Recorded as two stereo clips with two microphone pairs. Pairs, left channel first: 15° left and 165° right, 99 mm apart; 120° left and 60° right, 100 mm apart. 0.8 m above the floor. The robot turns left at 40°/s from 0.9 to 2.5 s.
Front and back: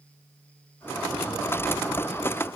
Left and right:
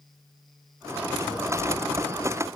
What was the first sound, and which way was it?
A cupboard door, 80° right.